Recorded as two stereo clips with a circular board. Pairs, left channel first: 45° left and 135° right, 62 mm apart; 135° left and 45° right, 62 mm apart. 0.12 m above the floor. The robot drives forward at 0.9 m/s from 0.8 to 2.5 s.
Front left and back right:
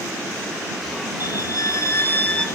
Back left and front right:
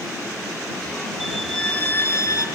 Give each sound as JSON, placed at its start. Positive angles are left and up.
{"t": 1.2, "sound": "a violin", "azimuth_deg": 40, "distance_m": 1.0}